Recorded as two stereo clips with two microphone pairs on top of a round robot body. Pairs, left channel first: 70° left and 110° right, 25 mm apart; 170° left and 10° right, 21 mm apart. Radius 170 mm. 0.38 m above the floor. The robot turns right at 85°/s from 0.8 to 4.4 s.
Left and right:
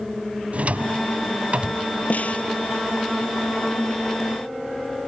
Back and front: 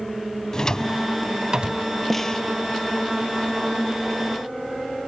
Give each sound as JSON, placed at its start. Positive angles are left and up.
{"t": 0.5, "sound": "a drawer", "azimuth_deg": -135}
{"t": 2.1, "sound": "a snare drum", "azimuth_deg": 85}